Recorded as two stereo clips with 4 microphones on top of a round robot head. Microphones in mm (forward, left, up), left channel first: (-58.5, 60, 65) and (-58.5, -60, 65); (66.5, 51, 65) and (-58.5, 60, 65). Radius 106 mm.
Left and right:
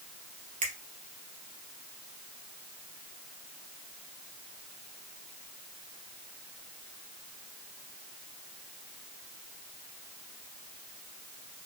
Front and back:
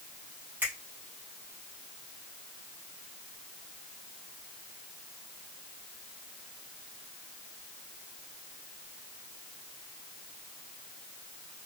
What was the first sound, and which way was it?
A finger snap, 105° right.